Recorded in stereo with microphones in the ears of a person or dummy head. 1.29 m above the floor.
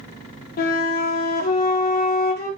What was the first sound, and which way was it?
A flute, 45° left (ahead or behind).